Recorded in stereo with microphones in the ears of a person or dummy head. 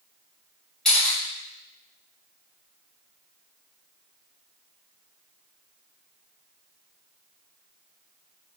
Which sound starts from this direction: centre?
A camera shutter, at 0.8 s.